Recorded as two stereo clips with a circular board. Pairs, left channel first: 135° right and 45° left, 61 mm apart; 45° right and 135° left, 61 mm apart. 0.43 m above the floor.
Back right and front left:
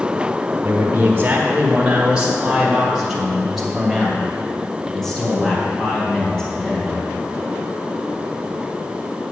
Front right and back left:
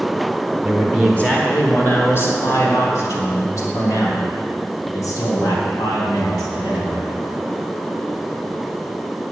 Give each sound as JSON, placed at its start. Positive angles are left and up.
{"t": 0.6, "sound": "a man speaking", "azimuth_deg": 35, "distance_m": 1.2}